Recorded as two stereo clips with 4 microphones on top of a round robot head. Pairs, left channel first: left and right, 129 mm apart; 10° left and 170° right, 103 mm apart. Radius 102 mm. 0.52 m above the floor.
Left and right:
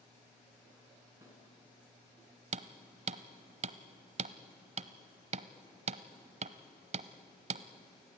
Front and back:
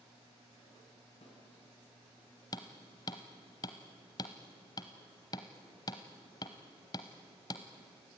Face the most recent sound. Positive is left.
turn(degrees=-55)